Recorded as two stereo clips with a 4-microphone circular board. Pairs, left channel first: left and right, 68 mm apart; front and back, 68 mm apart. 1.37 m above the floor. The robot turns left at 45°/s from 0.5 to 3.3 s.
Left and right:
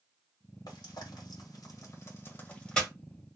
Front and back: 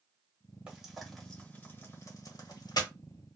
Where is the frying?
105° left, 1.7 m; by 2.9 s 5° left, 1.7 m.